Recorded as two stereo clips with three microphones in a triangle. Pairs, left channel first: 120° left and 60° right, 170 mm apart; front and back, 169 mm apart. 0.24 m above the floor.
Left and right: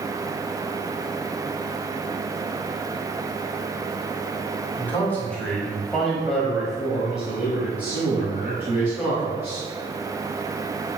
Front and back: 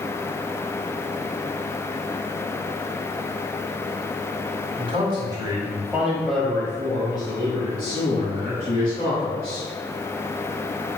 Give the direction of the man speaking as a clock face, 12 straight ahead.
6 o'clock.